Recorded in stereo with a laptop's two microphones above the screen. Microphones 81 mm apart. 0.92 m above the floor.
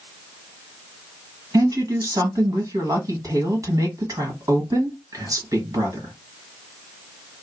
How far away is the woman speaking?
About 1.5 m.